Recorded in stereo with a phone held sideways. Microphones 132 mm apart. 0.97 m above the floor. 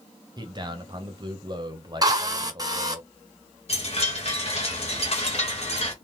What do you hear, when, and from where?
0.4 s a man speaking: 35° right (ahead or behind), 0.8 m
2.0 s a drill: 30° right (ahead or behind), 0.8 m
3.7 s a chime: 50° left (ahead or behind), 1.1 m